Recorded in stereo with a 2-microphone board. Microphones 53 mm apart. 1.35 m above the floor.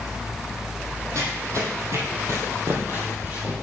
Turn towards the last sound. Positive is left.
turn(degrees=-25)  # may be behind; listen again after turning